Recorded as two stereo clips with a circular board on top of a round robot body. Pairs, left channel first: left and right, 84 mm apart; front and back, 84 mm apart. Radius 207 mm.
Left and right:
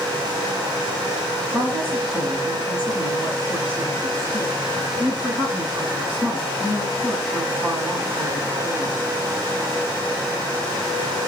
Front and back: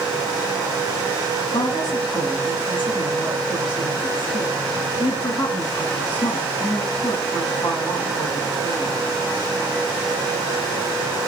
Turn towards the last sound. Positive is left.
turn(degrees=0)